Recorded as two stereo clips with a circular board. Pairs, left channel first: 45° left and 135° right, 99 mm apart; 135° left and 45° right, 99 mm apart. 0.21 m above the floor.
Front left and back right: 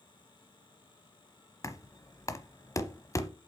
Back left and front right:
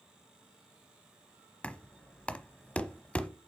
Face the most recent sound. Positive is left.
turn(degrees=65)